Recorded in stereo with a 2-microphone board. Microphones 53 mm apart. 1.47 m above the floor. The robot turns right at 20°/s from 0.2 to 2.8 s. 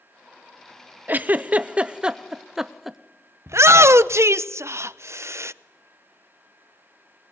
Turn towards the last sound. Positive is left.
turn(degrees=-60)  # may be behind; listen again after turning